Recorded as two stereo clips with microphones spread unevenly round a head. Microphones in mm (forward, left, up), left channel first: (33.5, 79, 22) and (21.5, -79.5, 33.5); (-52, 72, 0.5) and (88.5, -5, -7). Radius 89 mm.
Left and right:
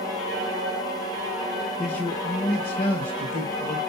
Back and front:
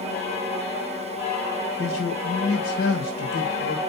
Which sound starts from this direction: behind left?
A man speaking, at 1.8 s.